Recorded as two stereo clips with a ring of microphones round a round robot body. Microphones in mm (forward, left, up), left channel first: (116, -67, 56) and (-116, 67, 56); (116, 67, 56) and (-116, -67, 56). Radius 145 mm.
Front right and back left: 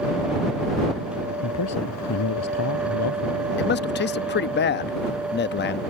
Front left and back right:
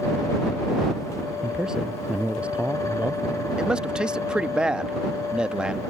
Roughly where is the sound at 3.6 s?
Ahead right.